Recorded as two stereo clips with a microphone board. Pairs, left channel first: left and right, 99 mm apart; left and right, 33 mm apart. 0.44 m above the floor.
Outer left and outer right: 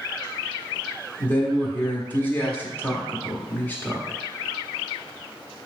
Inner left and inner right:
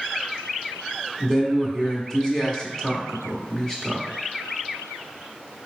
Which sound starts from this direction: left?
A man speaking, at 1.2 s.